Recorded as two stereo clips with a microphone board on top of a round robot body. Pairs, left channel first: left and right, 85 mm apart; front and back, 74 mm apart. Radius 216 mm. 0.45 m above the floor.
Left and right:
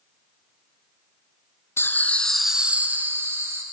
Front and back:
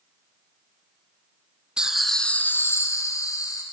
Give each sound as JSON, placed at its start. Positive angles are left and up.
{"t": 1.8, "sound": "laughter", "azimuth_deg": 110, "distance_m": 0.8}